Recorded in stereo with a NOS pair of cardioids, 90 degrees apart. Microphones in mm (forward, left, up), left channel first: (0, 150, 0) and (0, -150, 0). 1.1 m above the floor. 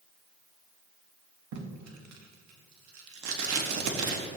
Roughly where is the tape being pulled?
Ahead right.